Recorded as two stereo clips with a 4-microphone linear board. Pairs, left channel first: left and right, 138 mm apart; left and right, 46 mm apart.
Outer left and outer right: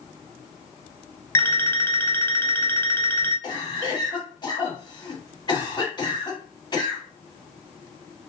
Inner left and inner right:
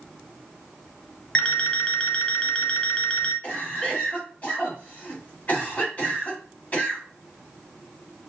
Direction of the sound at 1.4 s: 20° left (ahead or behind).